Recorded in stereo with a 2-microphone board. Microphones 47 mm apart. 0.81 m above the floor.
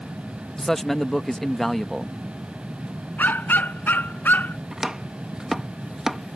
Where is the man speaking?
5° left (ahead or behind).